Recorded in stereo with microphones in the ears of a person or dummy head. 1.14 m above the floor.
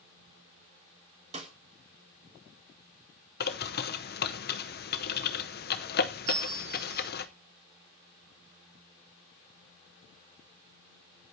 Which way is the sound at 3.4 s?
45° left (ahead or behind).